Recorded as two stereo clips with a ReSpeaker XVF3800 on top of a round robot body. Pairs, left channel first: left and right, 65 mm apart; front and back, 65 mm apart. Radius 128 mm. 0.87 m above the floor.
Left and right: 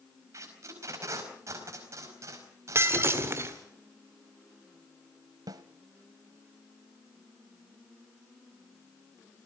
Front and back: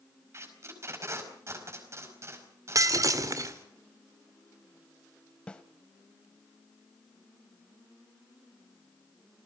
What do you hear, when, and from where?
0.3 s tape being pulled: 135° right, 4.5 m
2.8 s breaking glass: 145° right, 1.8 m
5.5 s a snare drum: 70° right, 0.9 m